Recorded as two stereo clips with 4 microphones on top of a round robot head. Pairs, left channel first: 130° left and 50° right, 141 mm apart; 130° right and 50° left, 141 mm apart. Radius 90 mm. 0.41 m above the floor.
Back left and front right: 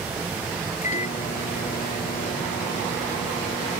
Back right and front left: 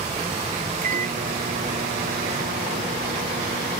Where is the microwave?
85° left.